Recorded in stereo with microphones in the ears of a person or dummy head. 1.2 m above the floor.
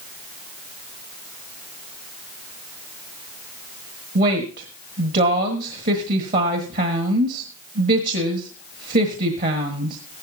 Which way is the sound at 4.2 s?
50° right (ahead or behind).